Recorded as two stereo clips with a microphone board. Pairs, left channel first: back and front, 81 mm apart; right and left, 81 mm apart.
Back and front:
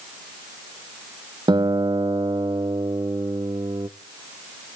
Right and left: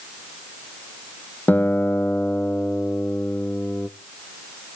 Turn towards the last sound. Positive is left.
turn(degrees=-25)